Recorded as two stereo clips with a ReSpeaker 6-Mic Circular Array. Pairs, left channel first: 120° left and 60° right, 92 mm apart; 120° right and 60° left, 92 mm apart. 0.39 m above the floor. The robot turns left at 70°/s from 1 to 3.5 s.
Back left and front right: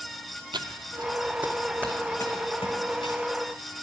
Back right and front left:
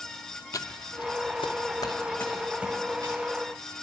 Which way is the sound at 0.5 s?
75° right.